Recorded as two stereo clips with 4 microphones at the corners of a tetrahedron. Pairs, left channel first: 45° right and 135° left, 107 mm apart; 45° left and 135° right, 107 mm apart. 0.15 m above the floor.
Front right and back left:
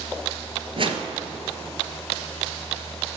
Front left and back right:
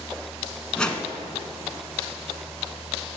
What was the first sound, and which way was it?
A whoosh, 125° left.